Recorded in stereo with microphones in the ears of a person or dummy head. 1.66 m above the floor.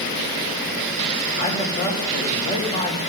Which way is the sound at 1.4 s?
30° left (ahead or behind).